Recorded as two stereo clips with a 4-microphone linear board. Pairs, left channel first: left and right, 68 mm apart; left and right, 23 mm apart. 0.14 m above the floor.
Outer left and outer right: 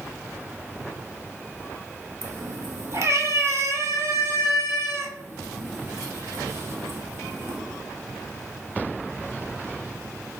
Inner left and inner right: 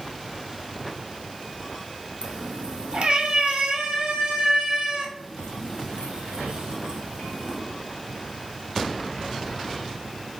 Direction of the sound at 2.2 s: 45° right (ahead or behind).